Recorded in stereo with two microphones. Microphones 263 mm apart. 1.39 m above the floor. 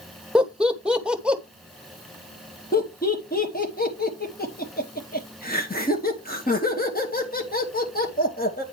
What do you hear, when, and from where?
0.3 s laughter: 5° right (ahead or behind), 1.0 m
2.7 s laughter: 35° left (ahead or behind), 1.9 m